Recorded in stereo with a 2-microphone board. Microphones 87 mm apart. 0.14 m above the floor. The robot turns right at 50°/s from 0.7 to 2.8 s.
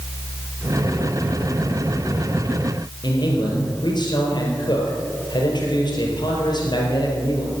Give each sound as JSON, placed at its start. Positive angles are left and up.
{"t": 3.0, "sound": "a man speaking", "side_deg": 60, "distance_m": 4.0}